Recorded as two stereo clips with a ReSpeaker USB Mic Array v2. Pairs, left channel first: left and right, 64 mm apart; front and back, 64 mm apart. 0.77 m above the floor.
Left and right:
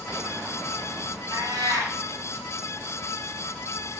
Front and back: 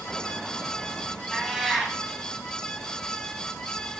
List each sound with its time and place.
1.3 s a cat meowing: 95° right, 1.6 m